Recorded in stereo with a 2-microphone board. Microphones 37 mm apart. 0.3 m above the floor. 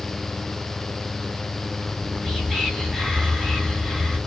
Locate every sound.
1.9 s whispering: 20° left (ahead or behind), 1.4 m